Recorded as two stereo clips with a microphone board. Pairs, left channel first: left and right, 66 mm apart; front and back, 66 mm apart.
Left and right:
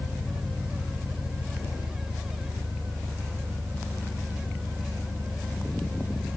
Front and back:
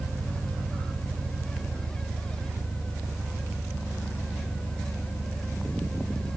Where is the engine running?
70° right, 4 m.